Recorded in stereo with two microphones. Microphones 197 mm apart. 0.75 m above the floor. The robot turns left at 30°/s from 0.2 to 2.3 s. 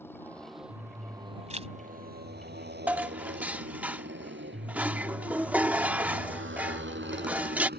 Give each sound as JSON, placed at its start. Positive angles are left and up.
{"t": 0.0, "sound": "a motorcycle", "side_deg": 10}
{"t": 1.5, "sound": "a zipper", "side_deg": -35}
{"t": 2.9, "sound": "dishes clattering", "side_deg": -10}